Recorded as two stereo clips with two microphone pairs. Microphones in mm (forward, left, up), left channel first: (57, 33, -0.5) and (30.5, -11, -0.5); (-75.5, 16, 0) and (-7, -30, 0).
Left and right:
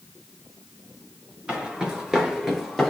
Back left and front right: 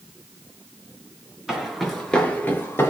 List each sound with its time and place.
1.5 s footsteps: 105° right, 1.7 m; by 2.9 s 150° left, 1.8 m